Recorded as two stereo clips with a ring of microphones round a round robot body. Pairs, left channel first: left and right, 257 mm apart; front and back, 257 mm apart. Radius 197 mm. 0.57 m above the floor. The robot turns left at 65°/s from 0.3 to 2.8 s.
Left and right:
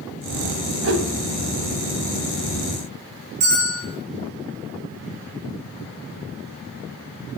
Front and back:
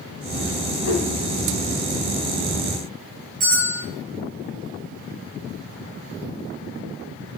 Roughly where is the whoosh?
Ahead right.